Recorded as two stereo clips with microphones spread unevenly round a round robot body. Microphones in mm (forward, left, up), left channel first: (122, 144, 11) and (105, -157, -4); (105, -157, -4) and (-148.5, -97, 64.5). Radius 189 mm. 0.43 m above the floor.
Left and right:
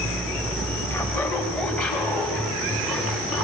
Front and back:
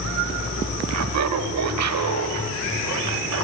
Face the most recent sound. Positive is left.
turn(degrees=175)